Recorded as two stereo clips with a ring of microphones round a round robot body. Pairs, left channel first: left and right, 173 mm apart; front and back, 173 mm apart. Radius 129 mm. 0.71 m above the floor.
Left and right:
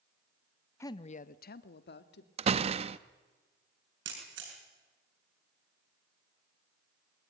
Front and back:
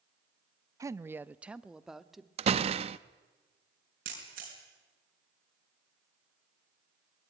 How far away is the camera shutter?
About 5 m.